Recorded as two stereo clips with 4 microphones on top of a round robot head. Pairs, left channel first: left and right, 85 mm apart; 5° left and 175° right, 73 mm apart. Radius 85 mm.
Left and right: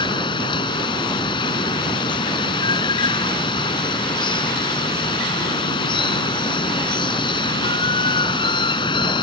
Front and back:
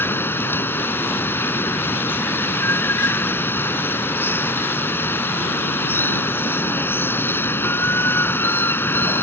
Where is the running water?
65° left.